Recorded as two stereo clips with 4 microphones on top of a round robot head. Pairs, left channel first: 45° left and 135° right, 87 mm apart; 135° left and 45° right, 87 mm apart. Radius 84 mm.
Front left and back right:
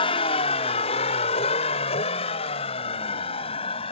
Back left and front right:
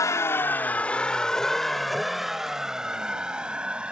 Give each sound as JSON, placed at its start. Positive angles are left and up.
{"t": 0.0, "sound": "a vehicle", "azimuth_deg": 75}